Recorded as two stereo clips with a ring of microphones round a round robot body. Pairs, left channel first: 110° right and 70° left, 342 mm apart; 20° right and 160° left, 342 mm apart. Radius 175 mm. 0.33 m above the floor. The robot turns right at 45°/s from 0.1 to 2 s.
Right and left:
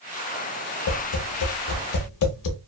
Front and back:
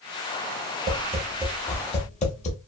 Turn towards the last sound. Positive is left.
turn(degrees=-90)